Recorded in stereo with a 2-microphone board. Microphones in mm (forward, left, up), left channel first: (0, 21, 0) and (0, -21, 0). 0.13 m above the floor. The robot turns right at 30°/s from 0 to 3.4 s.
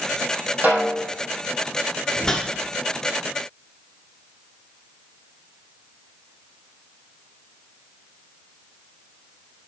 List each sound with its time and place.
0.6 s a snare drum: 40° right (ahead or behind), 3.5 m; by 1.1 s 50° right (ahead or behind), 3.5 m
2.2 s a whoosh: 15° left (ahead or behind), 1.1 m; by 2.5 s 10° left (ahead or behind), 1.1 m